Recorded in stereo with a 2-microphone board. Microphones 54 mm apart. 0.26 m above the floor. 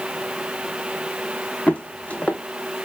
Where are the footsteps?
25° left (ahead or behind), 0.7 m.